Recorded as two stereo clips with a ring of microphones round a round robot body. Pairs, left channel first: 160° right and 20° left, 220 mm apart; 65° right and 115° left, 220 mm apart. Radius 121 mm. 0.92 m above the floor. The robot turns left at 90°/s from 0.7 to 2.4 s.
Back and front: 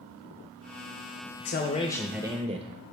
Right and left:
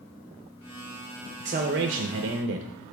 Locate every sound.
1.4 s a man speaking: 175° left, 0.8 m; by 2.7 s 85° left, 0.8 m